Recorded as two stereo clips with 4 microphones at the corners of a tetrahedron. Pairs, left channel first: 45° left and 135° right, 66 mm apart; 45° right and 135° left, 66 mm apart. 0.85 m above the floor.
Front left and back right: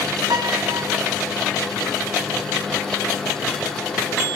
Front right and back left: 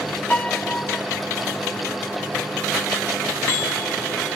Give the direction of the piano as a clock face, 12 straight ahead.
4 o'clock.